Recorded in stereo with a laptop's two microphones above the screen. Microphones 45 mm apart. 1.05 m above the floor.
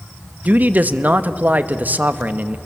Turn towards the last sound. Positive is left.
turn(degrees=-40)  # may be behind; listen again after turning